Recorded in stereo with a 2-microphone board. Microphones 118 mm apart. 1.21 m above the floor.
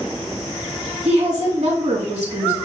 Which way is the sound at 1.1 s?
70° right (ahead or behind).